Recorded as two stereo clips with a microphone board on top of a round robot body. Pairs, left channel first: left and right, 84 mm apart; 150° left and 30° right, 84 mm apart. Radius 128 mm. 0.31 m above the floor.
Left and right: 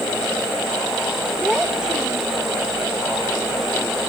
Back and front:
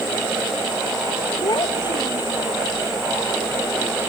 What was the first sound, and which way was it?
A child speaking, 170° right.